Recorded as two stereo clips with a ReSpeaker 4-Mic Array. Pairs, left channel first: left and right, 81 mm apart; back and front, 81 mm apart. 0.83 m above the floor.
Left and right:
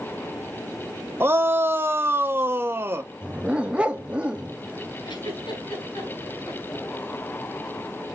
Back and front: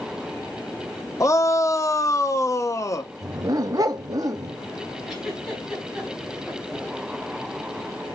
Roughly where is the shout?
Behind right.